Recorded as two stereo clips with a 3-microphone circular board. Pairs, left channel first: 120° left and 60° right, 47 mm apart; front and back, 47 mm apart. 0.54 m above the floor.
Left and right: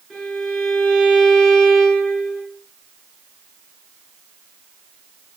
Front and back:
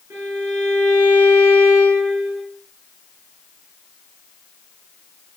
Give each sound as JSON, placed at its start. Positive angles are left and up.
{"t": 0.1, "sound": "a violin", "azimuth_deg": -150, "distance_m": 3.5}